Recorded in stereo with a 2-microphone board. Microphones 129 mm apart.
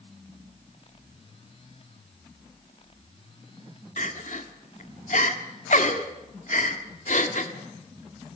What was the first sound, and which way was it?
Crying, 70° left (ahead or behind).